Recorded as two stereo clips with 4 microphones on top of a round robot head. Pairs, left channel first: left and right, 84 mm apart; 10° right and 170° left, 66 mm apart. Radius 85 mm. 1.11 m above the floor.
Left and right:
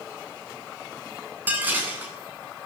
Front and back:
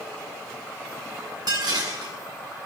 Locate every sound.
1.5 s dishes clattering: 160° right, 7.5 m